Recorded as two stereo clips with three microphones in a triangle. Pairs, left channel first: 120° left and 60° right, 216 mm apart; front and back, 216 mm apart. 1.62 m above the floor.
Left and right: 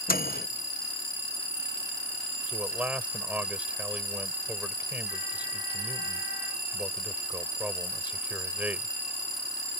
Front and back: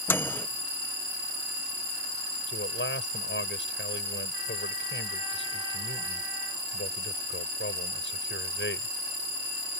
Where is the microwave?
80° left.